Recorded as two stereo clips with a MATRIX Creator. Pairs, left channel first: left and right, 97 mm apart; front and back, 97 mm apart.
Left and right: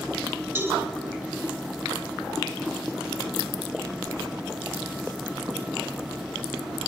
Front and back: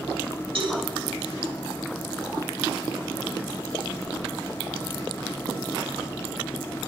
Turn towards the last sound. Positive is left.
turn(degrees=-150)